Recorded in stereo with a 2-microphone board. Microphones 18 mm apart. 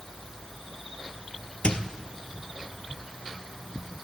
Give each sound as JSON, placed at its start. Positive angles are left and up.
{"t": 1.6, "sound": "a squeak", "side_deg": 70, "distance_m": 1.1}